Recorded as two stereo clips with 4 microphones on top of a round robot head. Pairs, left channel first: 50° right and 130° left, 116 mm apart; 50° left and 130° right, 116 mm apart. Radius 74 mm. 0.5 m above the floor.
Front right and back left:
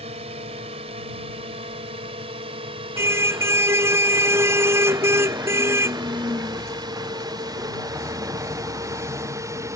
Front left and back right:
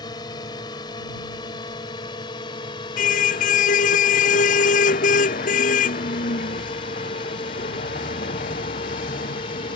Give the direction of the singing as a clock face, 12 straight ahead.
No singing in this recording.